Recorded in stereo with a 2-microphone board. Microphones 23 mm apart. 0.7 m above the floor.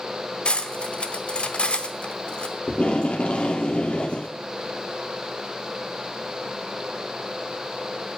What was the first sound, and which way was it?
Cutlery clinking, 55° left (ahead or behind).